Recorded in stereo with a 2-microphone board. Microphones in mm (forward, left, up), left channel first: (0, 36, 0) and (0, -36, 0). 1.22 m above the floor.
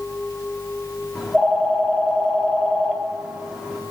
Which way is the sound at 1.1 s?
5° right (ahead or behind).